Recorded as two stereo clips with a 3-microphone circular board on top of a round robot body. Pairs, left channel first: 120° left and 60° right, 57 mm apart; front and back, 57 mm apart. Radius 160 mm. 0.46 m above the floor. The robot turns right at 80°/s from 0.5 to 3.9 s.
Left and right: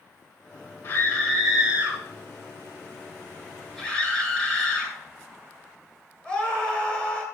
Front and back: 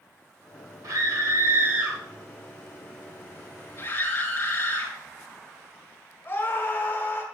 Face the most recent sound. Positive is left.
turn(degrees=50)